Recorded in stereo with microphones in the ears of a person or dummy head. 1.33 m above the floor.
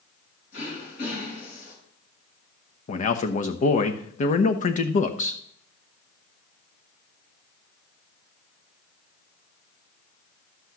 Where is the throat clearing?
60° left (ahead or behind), 7 m.